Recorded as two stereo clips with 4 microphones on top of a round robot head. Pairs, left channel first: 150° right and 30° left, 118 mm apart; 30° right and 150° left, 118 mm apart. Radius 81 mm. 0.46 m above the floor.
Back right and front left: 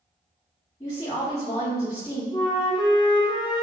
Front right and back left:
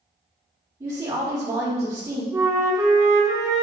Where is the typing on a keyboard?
No typing on a keyboard in this recording.